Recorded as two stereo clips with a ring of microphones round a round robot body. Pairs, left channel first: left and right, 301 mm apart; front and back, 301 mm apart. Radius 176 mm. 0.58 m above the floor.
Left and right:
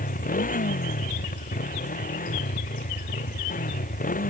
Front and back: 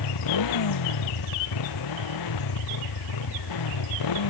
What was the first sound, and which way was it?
A motorcycle, 25° left.